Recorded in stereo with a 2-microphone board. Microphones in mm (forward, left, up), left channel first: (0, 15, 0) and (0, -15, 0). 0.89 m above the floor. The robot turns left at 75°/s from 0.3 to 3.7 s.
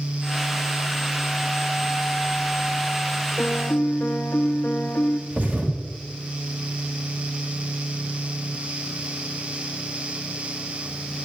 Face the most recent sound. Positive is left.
turn(degrees=-55)  # may be behind; listen again after turning